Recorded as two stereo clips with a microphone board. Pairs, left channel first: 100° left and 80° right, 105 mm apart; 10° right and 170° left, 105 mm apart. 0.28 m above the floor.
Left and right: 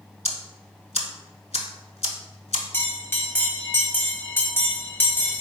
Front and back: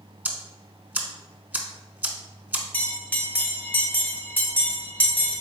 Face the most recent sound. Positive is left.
turn(degrees=50)